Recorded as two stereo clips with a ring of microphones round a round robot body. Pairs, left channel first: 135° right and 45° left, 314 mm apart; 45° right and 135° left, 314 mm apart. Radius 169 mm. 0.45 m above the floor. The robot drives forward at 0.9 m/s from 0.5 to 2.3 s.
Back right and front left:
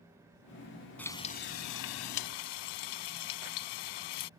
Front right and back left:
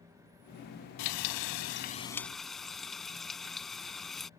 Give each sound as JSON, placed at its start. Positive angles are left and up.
{"t": 1.0, "sound": "frying", "azimuth_deg": -50}